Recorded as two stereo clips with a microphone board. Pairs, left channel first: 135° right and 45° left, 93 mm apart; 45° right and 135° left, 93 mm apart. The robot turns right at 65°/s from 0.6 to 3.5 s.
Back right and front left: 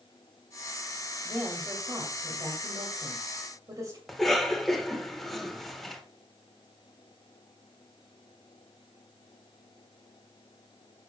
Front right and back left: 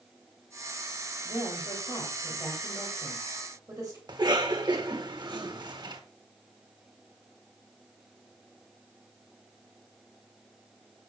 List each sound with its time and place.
1.2 s a woman speaking: 70° right, 2 m; by 4.0 s 80° left, 2 m
4.1 s a cough: 135° left, 1.6 m